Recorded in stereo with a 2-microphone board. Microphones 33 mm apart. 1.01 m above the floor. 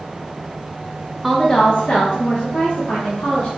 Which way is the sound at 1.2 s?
Centre (ahead or behind).